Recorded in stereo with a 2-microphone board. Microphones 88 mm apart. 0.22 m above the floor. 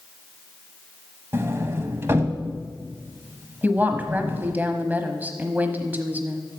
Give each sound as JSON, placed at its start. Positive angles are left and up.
{"t": 1.3, "sound": "a sliding door", "side_deg": -25, "distance_m": 1.0}
{"t": 3.6, "sound": "a woman speaking", "side_deg": -20, "distance_m": 1.0}